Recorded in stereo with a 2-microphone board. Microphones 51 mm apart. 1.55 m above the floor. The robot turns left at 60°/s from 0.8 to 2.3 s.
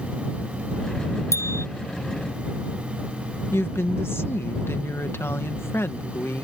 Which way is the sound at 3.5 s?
55° left (ahead or behind).